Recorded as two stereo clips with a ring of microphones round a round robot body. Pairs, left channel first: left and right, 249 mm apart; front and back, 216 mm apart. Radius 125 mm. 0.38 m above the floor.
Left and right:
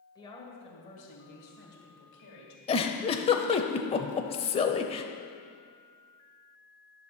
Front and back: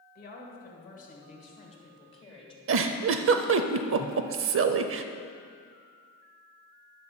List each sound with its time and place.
0.1 s a woman speaking: 20° left, 1.8 m; by 2.6 s 60° left, 2.5 m
2.7 s a giggle: 160° left, 0.5 m